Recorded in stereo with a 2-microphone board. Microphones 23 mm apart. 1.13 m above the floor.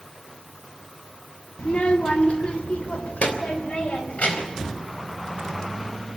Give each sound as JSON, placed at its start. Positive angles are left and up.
{"t": 1.6, "sound": "a child speaking", "side_deg": 60, "distance_m": 1.6}